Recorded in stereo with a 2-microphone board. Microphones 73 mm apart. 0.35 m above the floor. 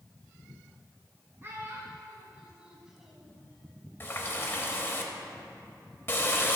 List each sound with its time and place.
1.4 s a child speaking: 35° right (ahead or behind), 2 m; by 3.4 s centre (ahead or behind), 1.6 m
4.0 s a running tap: 30° left (ahead or behind), 1.1 m